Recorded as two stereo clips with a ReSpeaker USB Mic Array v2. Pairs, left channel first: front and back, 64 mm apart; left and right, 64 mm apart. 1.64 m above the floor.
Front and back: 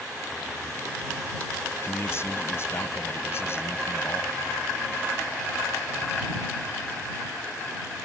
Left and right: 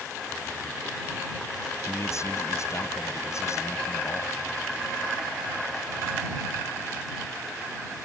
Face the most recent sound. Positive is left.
turn(degrees=50)